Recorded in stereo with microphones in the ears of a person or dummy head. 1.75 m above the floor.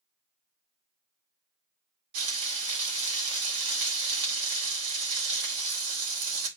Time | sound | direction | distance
2.1 | frying | 75° right (ahead or behind) | 2.5 m